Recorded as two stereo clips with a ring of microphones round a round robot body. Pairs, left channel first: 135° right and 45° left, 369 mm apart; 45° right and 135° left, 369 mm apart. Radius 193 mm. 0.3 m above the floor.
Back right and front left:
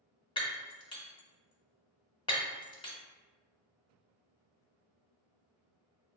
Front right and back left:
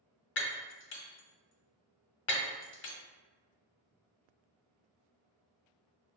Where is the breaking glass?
70° right, 0.8 m.